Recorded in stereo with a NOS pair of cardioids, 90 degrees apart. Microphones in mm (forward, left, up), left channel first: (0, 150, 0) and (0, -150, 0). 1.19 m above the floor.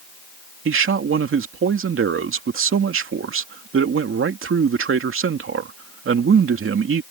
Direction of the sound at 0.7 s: 45° right.